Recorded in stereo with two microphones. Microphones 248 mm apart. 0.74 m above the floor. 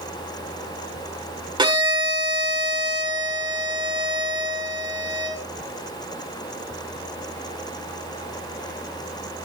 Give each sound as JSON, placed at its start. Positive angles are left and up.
{"t": 1.6, "sound": "a violin", "side_deg": -20, "distance_m": 1.6}